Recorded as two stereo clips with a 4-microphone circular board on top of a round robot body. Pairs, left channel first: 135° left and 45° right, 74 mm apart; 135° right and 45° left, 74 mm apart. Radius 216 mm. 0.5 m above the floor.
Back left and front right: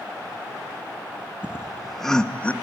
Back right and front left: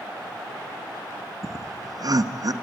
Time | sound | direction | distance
1.4 | laughter | 25° left | 1.0 m